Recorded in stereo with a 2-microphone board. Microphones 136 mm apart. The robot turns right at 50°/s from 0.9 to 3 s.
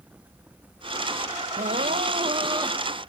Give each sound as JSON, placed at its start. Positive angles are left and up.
{"t": 1.6, "sound": "crying", "azimuth_deg": -80}